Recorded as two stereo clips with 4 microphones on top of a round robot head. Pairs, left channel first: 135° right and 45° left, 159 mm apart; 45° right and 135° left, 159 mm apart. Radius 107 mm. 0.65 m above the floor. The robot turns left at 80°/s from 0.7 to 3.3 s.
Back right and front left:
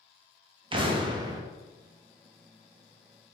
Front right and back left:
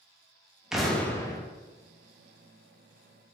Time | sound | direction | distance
0.7 | an explosion | 50° left | 0.6 m